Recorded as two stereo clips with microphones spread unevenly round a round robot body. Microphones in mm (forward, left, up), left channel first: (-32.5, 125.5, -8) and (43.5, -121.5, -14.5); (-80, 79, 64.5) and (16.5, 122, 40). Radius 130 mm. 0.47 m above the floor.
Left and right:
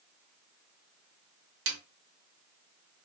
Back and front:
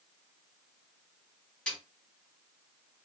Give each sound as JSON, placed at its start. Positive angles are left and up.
{"t": 1.7, "sound": "a snare drum", "azimuth_deg": -65, "distance_m": 0.8}